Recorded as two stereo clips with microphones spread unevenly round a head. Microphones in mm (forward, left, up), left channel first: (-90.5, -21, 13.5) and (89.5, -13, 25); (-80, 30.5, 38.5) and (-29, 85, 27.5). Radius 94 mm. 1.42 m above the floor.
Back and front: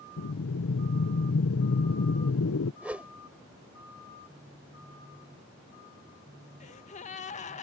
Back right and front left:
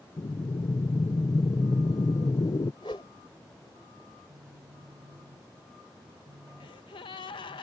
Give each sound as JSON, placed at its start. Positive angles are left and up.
{"t": 0.2, "sound": "breathing", "azimuth_deg": -175}
{"t": 2.8, "sound": "a whoosh", "azimuth_deg": -80}
{"t": 4.3, "sound": "a phone buzzing", "azimuth_deg": 75}
{"t": 6.6, "sound": "a gasp", "azimuth_deg": -125}